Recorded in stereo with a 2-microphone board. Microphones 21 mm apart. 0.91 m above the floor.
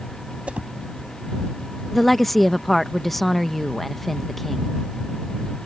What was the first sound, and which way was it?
A whoosh, 85° right.